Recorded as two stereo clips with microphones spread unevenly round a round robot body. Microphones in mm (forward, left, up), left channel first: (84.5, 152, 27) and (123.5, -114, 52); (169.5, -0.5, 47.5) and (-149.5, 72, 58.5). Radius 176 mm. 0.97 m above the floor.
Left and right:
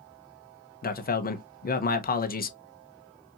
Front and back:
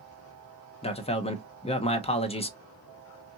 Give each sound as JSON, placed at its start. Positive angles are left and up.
{"t": 0.8, "sound": "a man speaking", "azimuth_deg": 55, "distance_m": 0.9}